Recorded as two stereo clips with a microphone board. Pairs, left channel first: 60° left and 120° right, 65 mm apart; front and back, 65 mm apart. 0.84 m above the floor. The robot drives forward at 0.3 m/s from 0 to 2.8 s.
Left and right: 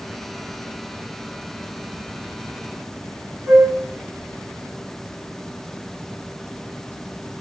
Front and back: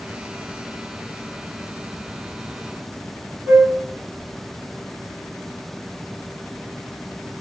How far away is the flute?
About 1.2 m.